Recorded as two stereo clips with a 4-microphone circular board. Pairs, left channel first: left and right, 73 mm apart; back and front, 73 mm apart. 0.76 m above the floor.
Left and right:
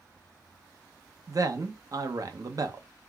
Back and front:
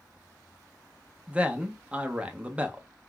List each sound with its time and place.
1.3 s a man speaking: 70° right, 0.6 m